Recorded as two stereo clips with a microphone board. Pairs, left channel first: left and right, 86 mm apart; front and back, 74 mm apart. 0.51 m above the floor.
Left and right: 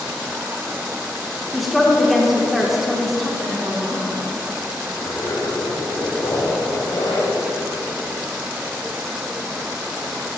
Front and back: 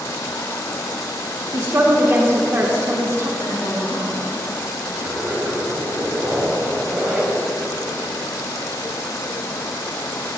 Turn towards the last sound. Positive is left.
turn(degrees=120)